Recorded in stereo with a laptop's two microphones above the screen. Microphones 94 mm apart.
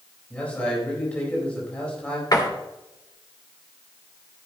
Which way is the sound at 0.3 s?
15° left (ahead or behind).